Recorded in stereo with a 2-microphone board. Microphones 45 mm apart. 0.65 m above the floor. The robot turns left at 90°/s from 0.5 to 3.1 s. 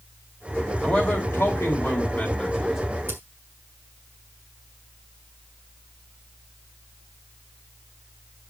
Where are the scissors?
60° right (ahead or behind), 2.5 m; by 3.2 s 65° right (ahead or behind), 2.5 m.